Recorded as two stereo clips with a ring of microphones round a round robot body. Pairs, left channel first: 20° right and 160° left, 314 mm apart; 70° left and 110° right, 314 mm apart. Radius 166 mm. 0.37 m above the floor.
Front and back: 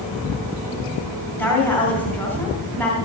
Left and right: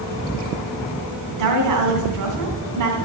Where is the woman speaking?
105° right, 2.5 m.